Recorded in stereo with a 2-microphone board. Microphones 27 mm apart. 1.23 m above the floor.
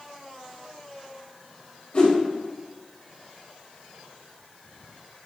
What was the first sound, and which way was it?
A whoosh, 50° left (ahead or behind).